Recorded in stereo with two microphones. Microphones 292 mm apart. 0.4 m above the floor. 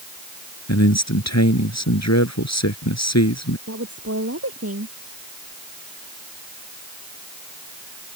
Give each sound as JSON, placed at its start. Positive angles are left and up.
{"t": 0.7, "sound": "a man speaking", "side_deg": 65}
{"t": 3.7, "sound": "a woman speaking", "side_deg": -55}